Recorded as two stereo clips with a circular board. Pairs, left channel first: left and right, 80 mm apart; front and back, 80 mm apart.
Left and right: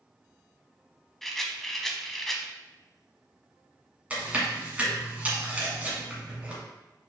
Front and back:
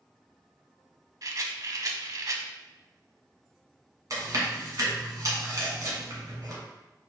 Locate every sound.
1.2 s a rattle: 175° left, 0.5 m
4.1 s chewing: 160° right, 1.7 m